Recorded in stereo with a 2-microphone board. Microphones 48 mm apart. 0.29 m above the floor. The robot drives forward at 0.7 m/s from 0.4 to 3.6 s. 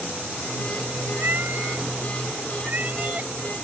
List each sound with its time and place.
1.2 s a cat meowing: 50° right (ahead or behind); by 3.3 s 35° right (ahead or behind)